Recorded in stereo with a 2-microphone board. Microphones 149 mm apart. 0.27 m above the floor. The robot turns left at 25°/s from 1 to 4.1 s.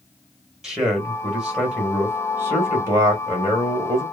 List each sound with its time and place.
0.6 s a man speaking: 5° right (ahead or behind), 1.1 m; by 4.0 s 20° right (ahead or behind), 1.1 m